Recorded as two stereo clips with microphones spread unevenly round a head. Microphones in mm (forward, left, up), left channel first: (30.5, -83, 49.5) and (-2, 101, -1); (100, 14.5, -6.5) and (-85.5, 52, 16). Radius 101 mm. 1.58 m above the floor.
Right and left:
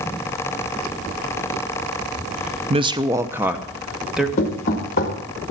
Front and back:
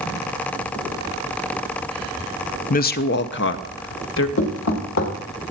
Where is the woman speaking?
35° left, 0.5 m; by 4.3 s 10° left, 1.4 m.